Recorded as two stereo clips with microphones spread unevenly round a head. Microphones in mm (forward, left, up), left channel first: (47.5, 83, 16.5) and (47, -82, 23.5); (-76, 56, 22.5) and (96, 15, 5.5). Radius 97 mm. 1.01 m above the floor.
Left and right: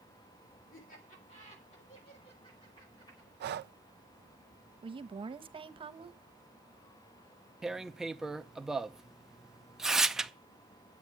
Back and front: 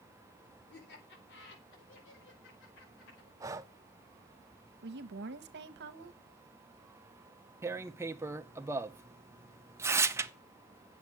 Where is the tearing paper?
Straight ahead, 0.8 m.